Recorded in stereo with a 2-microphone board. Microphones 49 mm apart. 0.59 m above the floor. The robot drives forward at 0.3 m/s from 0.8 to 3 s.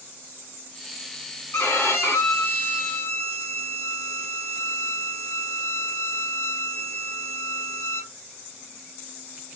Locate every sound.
1.5 s a violin: 60° left (ahead or behind), 1.1 m